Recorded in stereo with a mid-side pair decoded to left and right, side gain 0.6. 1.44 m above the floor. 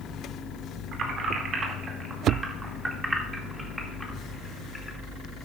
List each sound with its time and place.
0.9 s keys jangling: 50° right, 2 m; by 5.0 s 15° left, 2 m